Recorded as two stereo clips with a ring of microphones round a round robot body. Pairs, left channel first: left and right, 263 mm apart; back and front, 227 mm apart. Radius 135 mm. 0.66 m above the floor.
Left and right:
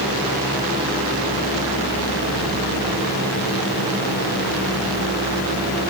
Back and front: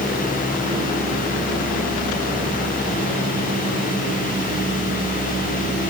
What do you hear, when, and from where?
Only background noise.